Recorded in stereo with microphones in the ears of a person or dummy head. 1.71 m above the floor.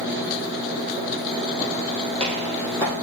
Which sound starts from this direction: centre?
Footsteps, at 1.6 s.